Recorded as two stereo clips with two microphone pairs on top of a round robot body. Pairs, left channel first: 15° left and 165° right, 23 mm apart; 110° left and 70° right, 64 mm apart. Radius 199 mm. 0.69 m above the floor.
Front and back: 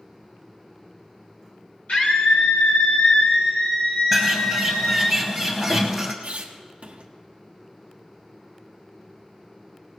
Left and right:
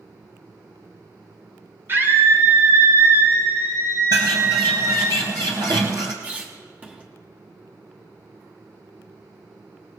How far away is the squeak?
About 1.1 m.